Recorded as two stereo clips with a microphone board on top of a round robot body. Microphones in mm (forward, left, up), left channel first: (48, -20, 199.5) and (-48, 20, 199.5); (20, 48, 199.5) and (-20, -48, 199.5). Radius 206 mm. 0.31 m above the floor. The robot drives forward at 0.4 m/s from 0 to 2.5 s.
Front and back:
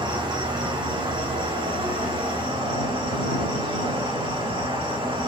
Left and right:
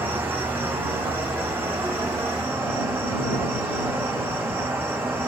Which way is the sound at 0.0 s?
Straight behind.